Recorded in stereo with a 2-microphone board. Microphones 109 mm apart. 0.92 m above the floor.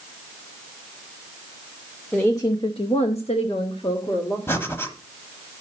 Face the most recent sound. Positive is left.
turn(degrees=25)  # may be behind; listen again after turning